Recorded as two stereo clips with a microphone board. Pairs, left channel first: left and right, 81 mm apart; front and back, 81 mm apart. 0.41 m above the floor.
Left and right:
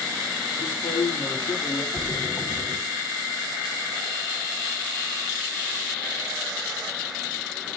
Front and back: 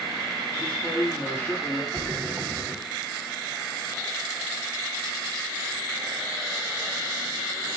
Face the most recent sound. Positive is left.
turn(degrees=145)